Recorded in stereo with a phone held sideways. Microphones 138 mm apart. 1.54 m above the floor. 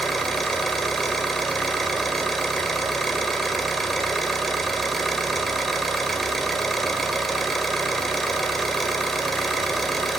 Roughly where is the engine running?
Centre.